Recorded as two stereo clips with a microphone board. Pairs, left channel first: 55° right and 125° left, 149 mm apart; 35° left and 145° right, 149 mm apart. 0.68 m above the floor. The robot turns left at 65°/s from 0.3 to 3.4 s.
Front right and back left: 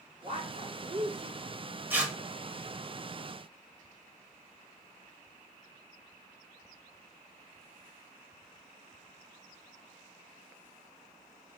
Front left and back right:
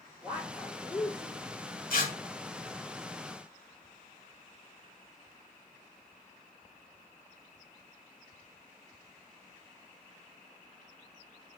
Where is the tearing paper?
50° left, 1.2 m; by 2.1 s 35° left, 1.2 m.